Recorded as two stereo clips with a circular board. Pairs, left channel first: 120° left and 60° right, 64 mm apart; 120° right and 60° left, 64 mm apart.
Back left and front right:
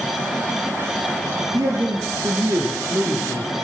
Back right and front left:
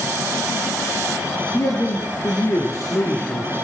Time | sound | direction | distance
1.5 | a man speaking | 80° right | 4 m